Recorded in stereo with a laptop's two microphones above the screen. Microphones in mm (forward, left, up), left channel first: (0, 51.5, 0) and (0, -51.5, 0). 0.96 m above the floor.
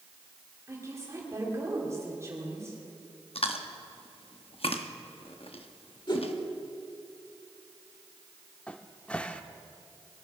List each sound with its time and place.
0.7 s a woman speaking: 30° right (ahead or behind), 3 m
3.4 s chewing: 65° left (ahead or behind), 0.9 m
6.1 s a whoosh: 45° left (ahead or behind), 1.6 m
8.7 s a cupboard door: 10° left (ahead or behind), 0.6 m